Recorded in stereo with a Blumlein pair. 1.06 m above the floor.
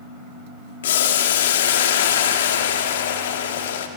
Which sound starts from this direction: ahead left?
Boiling, at 0.8 s.